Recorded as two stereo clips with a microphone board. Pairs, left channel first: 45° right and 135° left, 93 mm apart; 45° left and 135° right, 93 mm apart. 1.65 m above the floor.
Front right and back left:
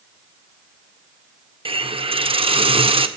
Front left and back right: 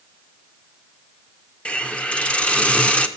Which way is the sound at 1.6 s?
125° left.